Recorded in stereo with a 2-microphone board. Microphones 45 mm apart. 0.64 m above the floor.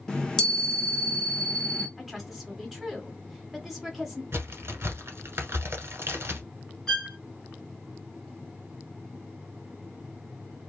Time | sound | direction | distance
0.1 | a chime | 15° left (ahead or behind) | 0.8 m
2.0 | a woman speaking | 5° right (ahead or behind) | 1.3 m
4.3 | a crack | 70° right (ahead or behind) | 1.3 m
6.9 | a violin | 15° left (ahead or behind) | 1.6 m